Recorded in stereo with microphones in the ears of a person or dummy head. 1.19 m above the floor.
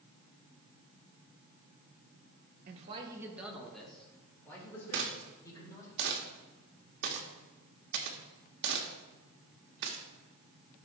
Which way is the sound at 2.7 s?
40° right (ahead or behind).